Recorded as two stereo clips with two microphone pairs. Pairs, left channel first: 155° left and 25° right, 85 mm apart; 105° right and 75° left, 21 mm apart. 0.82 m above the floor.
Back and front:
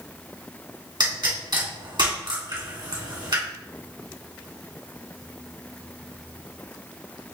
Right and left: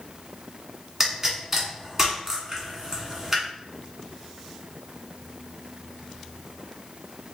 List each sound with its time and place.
1.0 s a pop: straight ahead, 1.8 m